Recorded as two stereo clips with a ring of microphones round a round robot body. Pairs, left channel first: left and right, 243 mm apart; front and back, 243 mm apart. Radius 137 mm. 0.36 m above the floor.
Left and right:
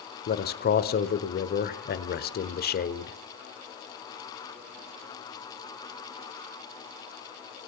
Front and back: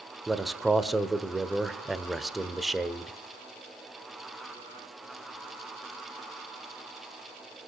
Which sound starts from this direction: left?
A man speaking, at 0.3 s.